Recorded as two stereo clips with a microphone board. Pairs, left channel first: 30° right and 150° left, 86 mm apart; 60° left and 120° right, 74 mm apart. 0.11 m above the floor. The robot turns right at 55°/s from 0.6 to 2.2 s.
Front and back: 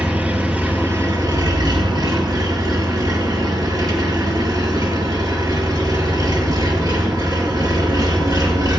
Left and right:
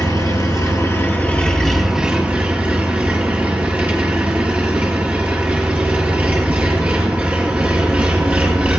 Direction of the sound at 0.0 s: 85° left.